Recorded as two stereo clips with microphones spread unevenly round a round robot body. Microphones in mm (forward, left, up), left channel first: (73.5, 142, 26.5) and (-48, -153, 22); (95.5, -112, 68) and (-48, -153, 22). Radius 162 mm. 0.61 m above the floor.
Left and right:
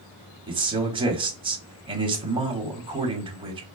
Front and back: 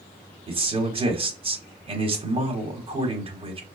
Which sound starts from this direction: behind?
A man speaking, at 0.5 s.